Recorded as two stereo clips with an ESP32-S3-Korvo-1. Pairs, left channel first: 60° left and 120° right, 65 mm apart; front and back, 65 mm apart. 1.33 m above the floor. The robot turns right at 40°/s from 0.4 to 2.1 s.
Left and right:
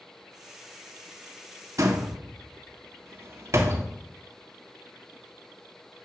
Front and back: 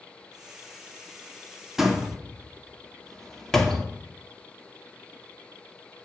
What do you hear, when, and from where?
1.8 s a door slam: 95° right, 2 m; by 3.9 s 85° right, 2 m